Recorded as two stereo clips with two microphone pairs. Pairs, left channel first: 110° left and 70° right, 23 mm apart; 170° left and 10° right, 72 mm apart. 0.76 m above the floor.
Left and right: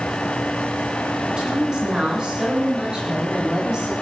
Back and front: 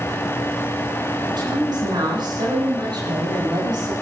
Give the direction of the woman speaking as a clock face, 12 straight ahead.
12 o'clock.